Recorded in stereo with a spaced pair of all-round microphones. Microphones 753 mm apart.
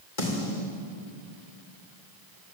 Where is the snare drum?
75° left (ahead or behind), 3 m.